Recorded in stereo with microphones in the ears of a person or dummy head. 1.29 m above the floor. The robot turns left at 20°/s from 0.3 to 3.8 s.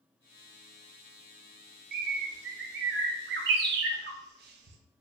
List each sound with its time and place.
1.9 s a bird: 50° right (ahead or behind), 0.6 m; by 4.8 s 55° right (ahead or behind), 0.6 m